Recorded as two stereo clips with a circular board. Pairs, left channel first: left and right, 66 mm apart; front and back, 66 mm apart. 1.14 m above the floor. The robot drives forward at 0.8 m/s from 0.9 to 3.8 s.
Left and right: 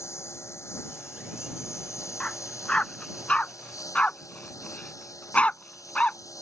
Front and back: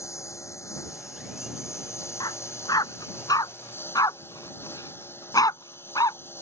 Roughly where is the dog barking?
Ahead.